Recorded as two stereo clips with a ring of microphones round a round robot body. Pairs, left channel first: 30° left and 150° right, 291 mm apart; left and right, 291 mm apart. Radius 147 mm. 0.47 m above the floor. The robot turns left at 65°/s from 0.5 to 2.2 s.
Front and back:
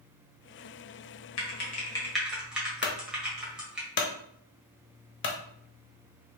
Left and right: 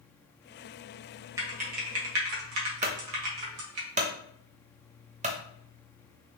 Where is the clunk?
25° right, 0.8 m.